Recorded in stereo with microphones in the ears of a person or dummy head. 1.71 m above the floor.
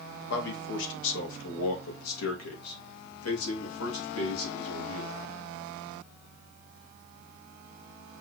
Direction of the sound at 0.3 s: 70° left (ahead or behind).